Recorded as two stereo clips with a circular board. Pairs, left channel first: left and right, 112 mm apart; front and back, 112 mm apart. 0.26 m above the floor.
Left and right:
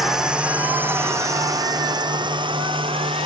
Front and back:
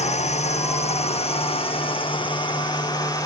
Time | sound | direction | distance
0.0 | a drone | 5° right | ?